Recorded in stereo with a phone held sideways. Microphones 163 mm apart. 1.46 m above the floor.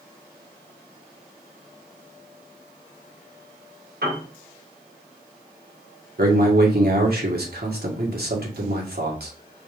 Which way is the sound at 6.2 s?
75° right (ahead or behind).